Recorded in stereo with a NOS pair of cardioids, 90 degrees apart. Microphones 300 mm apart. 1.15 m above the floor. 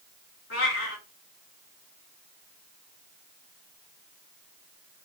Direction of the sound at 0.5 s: 45° left.